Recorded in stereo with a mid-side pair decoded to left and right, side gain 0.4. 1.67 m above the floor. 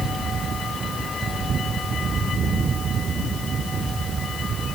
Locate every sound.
Only background noise.